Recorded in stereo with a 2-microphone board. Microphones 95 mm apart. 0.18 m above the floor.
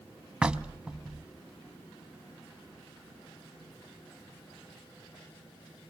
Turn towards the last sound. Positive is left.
turn(degrees=-10)  # may be behind; listen again after turning